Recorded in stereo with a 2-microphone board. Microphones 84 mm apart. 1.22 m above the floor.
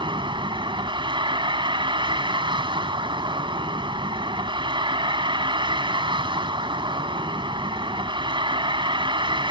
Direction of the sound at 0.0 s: 80° right.